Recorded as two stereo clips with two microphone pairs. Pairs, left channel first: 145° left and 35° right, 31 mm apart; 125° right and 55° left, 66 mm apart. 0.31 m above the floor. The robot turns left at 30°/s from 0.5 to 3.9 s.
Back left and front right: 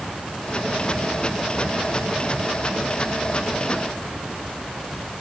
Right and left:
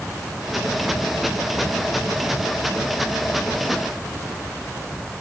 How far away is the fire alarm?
I don't hear a fire alarm.